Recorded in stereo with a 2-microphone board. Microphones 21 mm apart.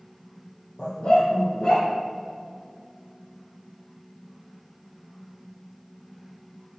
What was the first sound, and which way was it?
A dog barking, 55° left (ahead or behind).